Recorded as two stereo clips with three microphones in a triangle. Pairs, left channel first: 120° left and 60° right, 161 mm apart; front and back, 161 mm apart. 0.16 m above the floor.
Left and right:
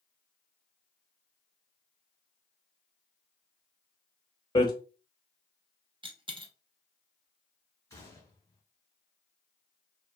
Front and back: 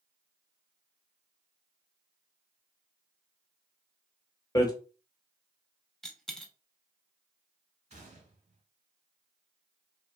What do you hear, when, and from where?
4.5 s hammering: 60° left, 0.7 m
6.0 s a dropped coin: 85° right, 0.5 m
7.9 s a gunshot: 175° right, 0.8 m